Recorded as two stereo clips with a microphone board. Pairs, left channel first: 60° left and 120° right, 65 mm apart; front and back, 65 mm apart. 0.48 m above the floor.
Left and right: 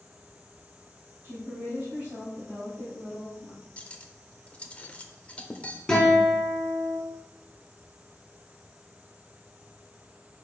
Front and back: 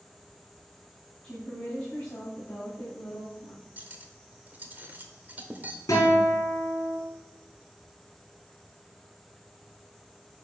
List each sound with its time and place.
1.2 s a woman speaking: 70° right, 3.5 m; by 3.6 s 45° right, 3.5 m
3.8 s cutlery clinking: 125° left, 0.8 m
5.9 s a guitar: 25° right, 3 m